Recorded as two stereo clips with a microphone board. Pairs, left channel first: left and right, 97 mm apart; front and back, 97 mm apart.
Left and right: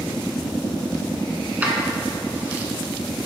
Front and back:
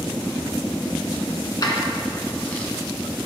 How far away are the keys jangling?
About 1.5 m.